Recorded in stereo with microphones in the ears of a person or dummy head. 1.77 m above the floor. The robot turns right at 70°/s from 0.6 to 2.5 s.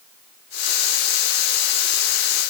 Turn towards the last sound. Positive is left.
No sound to turn to.